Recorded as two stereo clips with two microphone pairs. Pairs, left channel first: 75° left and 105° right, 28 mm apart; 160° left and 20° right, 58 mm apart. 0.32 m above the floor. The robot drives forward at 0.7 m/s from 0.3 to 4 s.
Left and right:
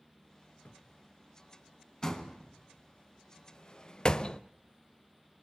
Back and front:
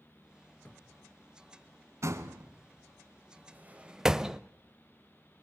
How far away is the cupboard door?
About 2 m.